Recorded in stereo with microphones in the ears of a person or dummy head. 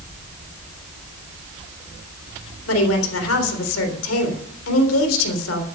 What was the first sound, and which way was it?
A woman speaking, 90° left.